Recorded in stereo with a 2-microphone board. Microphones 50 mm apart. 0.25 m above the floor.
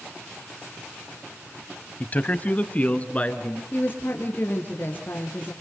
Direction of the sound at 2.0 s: 30° left (ahead or behind).